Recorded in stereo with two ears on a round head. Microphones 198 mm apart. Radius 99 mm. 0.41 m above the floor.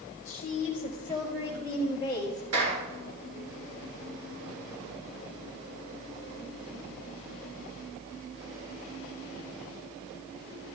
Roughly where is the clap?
Right.